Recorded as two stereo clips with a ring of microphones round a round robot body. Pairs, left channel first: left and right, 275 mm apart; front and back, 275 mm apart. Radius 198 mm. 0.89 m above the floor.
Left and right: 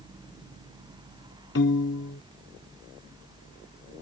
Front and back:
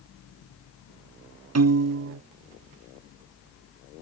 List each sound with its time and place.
1.6 s a piano: 150° left